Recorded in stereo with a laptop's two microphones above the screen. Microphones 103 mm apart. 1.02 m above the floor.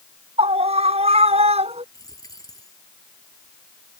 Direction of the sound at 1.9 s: 35° left (ahead or behind).